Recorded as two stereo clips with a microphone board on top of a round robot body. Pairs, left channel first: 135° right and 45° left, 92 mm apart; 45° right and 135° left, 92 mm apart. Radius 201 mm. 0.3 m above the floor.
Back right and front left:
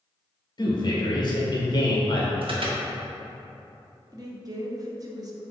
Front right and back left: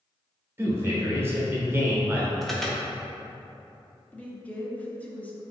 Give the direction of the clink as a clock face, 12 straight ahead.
I don't hear a clink.